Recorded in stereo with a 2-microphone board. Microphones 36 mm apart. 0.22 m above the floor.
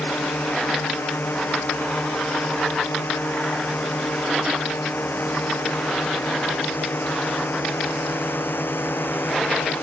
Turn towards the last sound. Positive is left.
turn(degrees=80)